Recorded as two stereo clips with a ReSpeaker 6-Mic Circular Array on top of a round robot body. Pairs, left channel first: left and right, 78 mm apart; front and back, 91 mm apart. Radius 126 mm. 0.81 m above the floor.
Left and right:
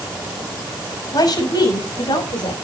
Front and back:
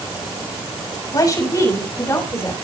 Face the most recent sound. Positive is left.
turn(degrees=65)